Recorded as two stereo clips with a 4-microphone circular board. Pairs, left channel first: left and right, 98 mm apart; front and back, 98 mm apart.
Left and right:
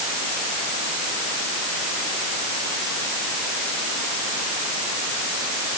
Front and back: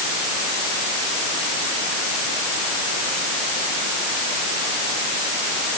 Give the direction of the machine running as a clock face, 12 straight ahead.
No machine running in this recording.